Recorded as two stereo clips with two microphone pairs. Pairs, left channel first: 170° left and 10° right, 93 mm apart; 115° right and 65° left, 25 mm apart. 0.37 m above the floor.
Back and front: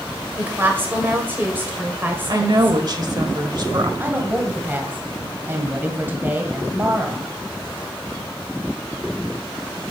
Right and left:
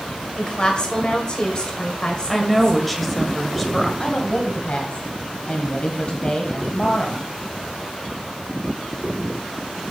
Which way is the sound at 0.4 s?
70° right.